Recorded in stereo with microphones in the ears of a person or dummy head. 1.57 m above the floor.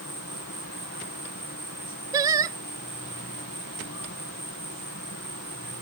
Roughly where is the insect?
Left.